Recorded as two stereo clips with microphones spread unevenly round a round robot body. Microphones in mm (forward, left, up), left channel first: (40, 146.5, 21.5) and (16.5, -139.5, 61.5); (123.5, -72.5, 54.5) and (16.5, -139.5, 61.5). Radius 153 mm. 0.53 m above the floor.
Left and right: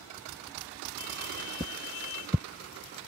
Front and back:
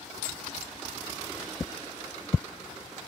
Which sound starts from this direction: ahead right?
Footsteps, at 1.6 s.